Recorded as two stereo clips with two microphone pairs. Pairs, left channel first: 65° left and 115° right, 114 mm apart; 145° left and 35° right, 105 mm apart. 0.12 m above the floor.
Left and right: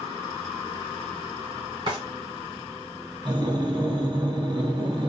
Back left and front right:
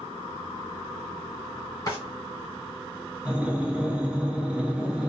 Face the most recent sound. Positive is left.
turn(degrees=-105)